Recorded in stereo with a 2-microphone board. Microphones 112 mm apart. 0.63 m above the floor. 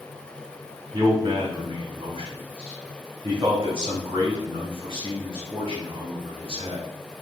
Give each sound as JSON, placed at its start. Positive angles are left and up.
{"t": 0.9, "sound": "a man speaking", "side_deg": -45, "distance_m": 1.6}